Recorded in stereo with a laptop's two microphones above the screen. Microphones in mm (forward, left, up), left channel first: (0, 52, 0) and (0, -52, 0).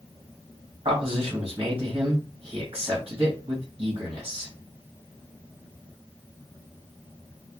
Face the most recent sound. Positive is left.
turn(degrees=-55)  # may be behind; listen again after turning